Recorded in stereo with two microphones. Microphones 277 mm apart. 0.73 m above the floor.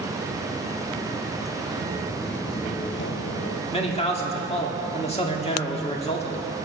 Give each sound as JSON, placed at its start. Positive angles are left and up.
{"t": 1.8, "sound": "footsteps", "side_deg": -30, "distance_m": 0.9}
{"t": 3.7, "sound": "a man speaking", "side_deg": 20, "distance_m": 1.9}